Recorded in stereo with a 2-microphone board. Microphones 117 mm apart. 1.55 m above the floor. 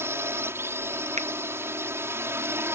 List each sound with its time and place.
0.0 s a drone: 20° right (ahead or behind)
1.2 s a finger snap: 80° right